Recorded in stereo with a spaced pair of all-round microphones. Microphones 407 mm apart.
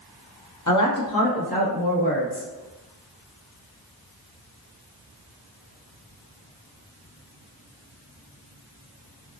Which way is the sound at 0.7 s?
45° left (ahead or behind).